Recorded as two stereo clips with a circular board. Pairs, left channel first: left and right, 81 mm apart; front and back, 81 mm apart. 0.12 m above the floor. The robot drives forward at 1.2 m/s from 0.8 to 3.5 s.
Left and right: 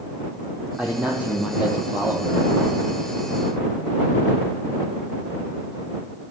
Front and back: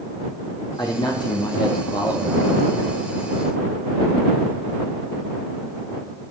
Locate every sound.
0.8 s a man speaking: 15° right, 5 m; by 2.4 s 25° right, 3.5 m